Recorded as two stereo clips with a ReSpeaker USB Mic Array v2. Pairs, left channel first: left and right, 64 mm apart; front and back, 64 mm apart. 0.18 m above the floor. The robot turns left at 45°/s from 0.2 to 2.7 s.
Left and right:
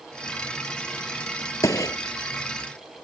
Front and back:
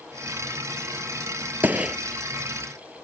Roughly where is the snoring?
I don't hear snoring.